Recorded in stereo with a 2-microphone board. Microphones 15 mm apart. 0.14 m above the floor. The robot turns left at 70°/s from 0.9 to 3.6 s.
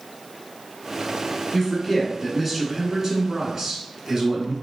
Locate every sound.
1.5 s a man speaking: 60° left, 1.2 m; by 4.5 s 85° right, 1.2 m